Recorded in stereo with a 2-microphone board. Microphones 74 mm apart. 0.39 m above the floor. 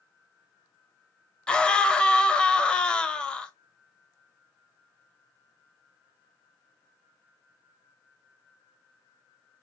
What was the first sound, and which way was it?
A scream, 15° left (ahead or behind).